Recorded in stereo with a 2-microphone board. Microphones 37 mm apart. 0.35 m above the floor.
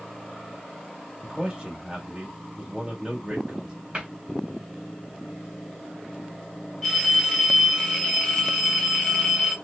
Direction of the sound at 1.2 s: 20° right (ahead or behind).